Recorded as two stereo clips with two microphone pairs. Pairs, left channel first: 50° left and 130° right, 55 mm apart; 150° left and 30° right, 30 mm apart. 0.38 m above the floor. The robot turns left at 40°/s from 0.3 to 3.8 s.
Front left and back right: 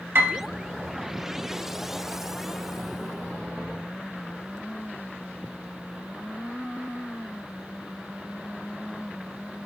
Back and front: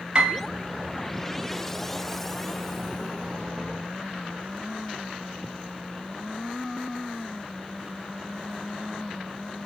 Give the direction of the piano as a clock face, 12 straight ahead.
3 o'clock.